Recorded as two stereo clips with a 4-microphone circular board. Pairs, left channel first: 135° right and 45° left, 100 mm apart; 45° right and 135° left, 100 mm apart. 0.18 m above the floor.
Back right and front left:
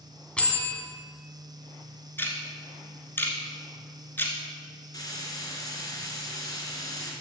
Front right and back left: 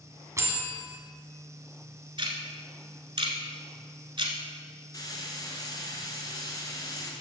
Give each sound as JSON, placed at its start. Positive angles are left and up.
{"t": 0.4, "sound": "a bell", "azimuth_deg": 155, "distance_m": 1.4}
{"t": 2.2, "sound": "ticking", "azimuth_deg": 160, "distance_m": 1.1}
{"t": 4.9, "sound": "frying", "azimuth_deg": -95, "distance_m": 2.0}